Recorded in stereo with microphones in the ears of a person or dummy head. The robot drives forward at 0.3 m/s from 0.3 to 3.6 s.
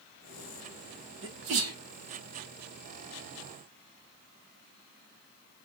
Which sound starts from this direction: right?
A sneeze, at 1.2 s.